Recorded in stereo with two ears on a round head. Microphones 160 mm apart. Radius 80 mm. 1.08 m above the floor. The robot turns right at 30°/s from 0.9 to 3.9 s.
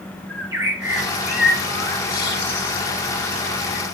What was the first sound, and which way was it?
A bird, 15° right (ahead or behind).